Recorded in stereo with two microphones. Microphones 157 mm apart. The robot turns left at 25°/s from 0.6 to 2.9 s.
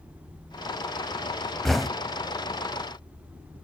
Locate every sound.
1.6 s knocking: centre (ahead or behind), 0.6 m